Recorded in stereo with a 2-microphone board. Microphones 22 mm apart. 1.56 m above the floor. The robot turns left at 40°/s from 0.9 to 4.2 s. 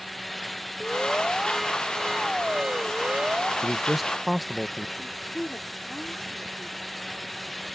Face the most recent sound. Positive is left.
turn(degrees=75)  # may be behind; listen again after turning